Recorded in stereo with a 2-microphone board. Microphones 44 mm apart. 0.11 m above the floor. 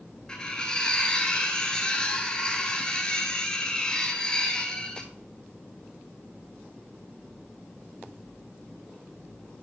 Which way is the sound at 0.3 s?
20° left (ahead or behind).